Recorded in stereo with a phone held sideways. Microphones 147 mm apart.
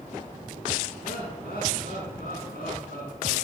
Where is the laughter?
80° left, 7.5 m.